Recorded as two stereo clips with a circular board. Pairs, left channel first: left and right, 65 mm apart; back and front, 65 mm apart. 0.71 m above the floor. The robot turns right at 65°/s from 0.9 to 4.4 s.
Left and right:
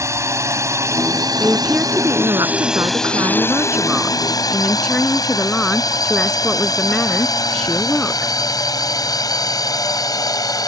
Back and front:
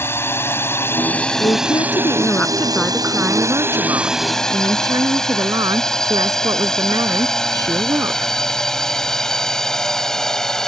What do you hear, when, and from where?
0.0 s a drone: 130° right; by 10.7 s 100° left
1.4 s a woman speaking: 175° left; by 8.3 s 10° left